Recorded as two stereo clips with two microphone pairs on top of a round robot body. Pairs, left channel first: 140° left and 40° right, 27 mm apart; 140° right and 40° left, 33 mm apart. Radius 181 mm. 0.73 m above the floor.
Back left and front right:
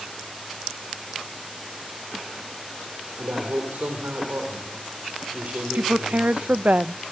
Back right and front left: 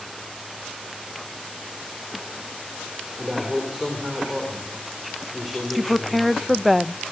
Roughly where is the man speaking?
Ahead right.